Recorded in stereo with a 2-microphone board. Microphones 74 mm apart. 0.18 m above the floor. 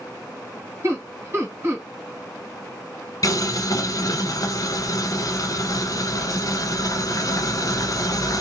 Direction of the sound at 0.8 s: 30° right (ahead or behind).